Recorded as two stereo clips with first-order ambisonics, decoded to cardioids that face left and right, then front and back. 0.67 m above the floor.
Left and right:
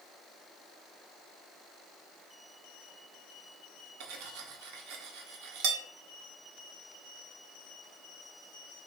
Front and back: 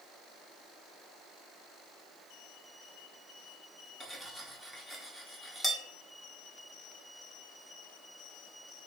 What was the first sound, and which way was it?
Cutlery clinking, 90° right.